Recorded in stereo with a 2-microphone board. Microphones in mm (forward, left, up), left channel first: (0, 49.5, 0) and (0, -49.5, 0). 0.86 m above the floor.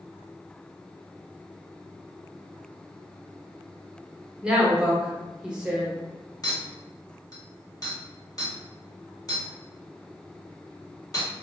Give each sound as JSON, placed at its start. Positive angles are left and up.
{"t": 4.4, "sound": "a woman speaking", "side_deg": -10, "distance_m": 0.9}
{"t": 6.4, "sound": "a clink", "side_deg": 40, "distance_m": 1.1}